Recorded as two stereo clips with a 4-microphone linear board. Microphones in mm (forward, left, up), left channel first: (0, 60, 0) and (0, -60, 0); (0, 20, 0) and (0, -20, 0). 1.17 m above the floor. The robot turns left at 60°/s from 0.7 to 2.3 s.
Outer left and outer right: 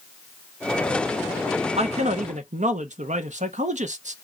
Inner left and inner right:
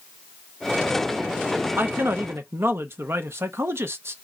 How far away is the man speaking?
About 0.7 m.